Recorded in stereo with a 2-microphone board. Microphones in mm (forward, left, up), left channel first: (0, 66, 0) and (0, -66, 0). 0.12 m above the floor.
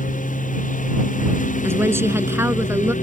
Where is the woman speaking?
20° right (ahead or behind).